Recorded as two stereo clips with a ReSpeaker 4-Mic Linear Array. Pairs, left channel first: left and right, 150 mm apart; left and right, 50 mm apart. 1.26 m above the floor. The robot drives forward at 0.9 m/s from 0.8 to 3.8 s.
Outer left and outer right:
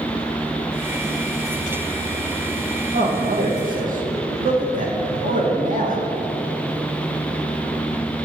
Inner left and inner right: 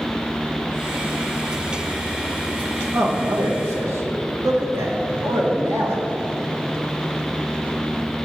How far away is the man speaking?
About 1.8 m.